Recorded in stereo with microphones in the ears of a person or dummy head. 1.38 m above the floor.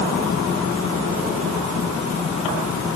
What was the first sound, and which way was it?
Only background noise.